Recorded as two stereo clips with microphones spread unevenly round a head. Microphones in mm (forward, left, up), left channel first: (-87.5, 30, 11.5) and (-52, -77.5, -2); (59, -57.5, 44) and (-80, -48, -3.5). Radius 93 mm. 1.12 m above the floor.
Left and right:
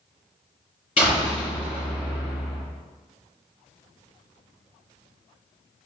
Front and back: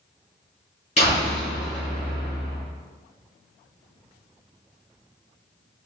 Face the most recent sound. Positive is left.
turn(degrees=50)